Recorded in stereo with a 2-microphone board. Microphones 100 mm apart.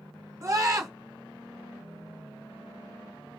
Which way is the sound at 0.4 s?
35° right (ahead or behind).